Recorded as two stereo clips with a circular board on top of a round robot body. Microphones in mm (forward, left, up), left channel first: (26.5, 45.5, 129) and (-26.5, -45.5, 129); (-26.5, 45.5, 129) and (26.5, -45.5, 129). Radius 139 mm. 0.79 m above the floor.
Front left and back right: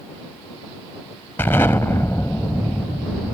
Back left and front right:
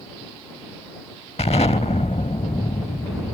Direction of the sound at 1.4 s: 120° left.